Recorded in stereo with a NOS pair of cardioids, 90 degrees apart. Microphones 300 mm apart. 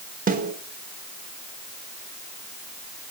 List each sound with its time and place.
0.3 s a snare drum: 30° right, 5 m